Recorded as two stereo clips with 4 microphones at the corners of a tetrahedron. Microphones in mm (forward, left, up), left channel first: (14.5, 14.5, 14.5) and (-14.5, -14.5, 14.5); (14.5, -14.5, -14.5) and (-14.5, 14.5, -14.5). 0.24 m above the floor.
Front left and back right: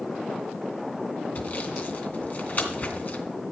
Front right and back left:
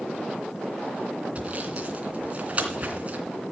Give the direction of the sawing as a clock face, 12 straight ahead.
9 o'clock.